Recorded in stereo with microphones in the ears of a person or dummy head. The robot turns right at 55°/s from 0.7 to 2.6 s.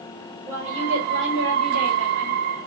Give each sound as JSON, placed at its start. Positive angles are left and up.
{"t": 0.5, "sound": "a woman speaking", "azimuth_deg": -150, "distance_m": 1.3}